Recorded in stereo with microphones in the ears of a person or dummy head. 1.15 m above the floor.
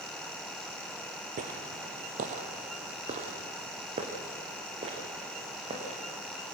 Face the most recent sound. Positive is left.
turn(degrees=-30)  # may be behind; listen again after turning